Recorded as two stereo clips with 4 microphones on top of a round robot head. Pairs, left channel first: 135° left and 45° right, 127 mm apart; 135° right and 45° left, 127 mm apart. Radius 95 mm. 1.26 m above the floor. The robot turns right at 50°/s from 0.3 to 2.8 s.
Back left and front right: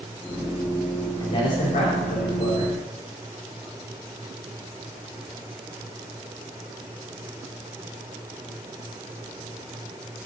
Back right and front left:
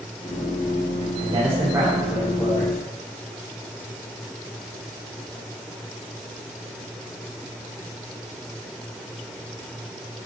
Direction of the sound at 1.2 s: 85° left.